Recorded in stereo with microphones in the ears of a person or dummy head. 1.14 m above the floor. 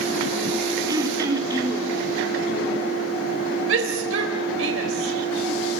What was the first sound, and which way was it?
Throat clearing, 25° right (ahead or behind).